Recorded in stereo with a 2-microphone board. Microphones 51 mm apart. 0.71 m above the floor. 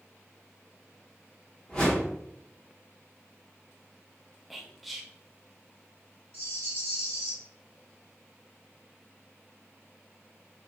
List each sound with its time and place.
1.7 s a whoosh: 20° left (ahead or behind), 1.1 m
4.5 s whispering: centre (ahead or behind), 0.5 m
6.3 s a rattle: 70° right (ahead or behind), 1.1 m